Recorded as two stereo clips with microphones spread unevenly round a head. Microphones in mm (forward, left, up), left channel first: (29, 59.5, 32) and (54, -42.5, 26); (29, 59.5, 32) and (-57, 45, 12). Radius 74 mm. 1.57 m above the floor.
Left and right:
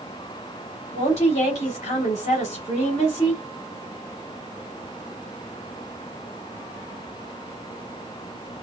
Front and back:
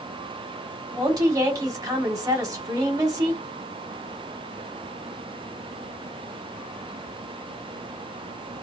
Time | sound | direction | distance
0.9 | a woman speaking | 145° left | 2.5 m